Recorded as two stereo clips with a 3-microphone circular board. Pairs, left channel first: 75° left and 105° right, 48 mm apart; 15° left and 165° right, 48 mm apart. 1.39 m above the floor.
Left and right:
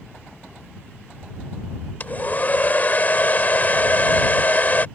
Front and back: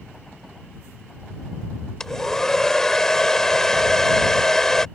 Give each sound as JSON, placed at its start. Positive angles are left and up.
{"t": 2.0, "sound": "a hair dryer", "azimuth_deg": 90}